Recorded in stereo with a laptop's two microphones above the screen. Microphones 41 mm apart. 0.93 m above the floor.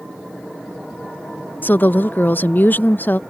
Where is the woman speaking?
50° left (ahead or behind).